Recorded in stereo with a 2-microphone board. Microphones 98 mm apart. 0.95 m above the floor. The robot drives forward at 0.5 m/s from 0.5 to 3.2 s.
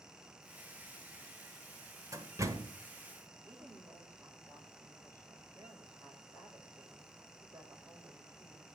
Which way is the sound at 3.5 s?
25° right (ahead or behind).